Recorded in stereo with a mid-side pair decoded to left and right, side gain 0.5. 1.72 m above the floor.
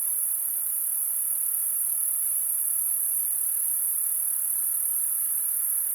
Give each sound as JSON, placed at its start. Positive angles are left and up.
{"t": 0.0, "sound": "an insect", "azimuth_deg": -30, "distance_m": 2.0}